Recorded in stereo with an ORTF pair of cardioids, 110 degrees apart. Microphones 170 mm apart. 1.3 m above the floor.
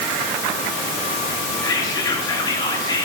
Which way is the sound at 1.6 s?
25° left.